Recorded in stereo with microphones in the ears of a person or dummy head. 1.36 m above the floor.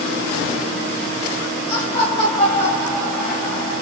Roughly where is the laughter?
Left.